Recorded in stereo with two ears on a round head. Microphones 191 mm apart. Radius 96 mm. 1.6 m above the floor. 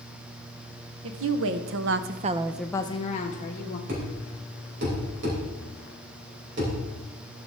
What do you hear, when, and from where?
1.0 s a woman speaking: 70° right (ahead or behind), 1.2 m; by 3.8 s 45° left (ahead or behind), 1.2 m
3.9 s a thud: 55° right (ahead or behind), 4 m